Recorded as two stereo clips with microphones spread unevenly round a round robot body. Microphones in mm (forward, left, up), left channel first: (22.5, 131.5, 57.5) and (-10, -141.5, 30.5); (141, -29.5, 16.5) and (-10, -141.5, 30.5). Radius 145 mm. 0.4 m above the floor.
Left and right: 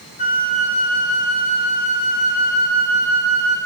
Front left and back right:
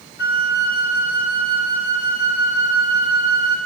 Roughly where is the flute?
Ahead.